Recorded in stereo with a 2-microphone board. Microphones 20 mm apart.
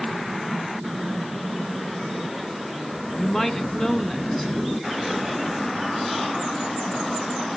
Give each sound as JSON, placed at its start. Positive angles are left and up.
{"t": 3.2, "sound": "a woman speaking", "side_deg": 20, "distance_m": 1.4}